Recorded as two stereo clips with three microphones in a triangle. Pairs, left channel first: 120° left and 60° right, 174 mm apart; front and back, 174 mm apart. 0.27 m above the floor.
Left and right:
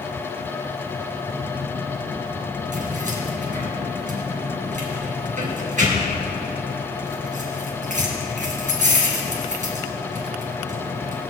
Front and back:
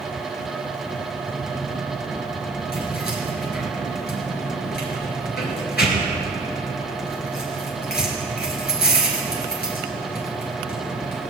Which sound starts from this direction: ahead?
Keys jangling, at 2.7 s.